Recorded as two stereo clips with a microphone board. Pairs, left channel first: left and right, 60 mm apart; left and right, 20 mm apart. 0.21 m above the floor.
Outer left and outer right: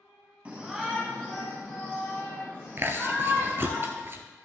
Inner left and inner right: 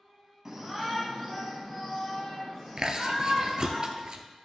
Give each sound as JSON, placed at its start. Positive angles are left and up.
{"t": 0.5, "sound": "a shout", "side_deg": -25, "distance_m": 1.3}
{"t": 2.8, "sound": "chewing", "side_deg": -40, "distance_m": 1.0}